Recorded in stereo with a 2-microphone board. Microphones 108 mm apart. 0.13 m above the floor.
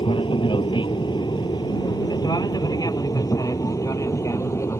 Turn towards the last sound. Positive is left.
turn(degrees=25)  # may be behind; listen again after turning